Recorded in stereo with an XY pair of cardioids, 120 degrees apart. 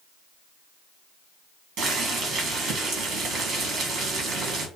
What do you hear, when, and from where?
1.8 s boiling: 70° right, 1.1 m